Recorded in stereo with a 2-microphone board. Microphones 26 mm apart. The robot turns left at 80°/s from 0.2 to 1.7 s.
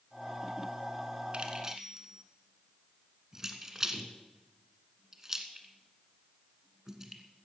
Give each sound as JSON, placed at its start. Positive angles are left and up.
{"t": 1.3, "sound": "keys jangling", "side_deg": -40, "distance_m": 1.5}